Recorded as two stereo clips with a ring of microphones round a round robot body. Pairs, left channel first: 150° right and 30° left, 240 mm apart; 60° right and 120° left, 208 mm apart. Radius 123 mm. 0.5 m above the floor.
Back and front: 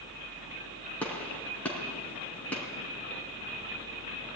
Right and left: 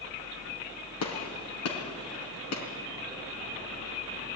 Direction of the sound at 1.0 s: 65° right.